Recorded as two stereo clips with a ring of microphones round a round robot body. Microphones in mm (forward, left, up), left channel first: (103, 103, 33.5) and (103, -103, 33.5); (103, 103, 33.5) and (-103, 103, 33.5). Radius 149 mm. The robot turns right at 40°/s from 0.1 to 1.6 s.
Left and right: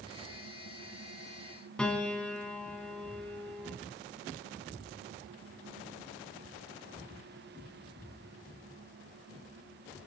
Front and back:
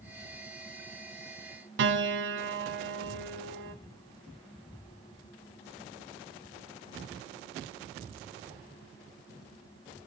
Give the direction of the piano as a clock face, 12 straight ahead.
6 o'clock.